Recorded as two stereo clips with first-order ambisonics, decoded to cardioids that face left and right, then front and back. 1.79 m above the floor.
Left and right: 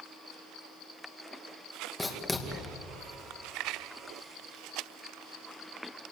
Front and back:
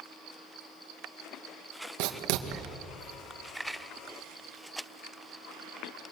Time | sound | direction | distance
2.0 | writing | 170° left | 2 m